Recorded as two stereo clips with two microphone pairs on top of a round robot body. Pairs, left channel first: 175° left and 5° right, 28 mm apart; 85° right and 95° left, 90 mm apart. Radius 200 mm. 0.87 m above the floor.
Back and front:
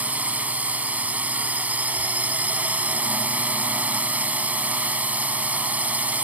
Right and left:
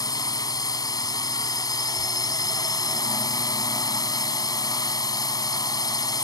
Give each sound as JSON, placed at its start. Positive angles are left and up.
{"t": 0.0, "sound": "a drone", "azimuth_deg": -35}